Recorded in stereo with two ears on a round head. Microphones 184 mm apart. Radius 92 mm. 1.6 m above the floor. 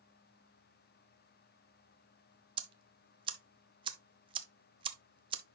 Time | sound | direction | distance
2.6 | ticking | 25° right (ahead or behind) | 0.8 m